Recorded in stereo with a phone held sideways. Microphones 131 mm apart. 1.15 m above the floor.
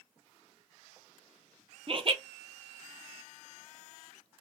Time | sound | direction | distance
1.9 | laughter | 40° right (ahead or behind) | 0.6 m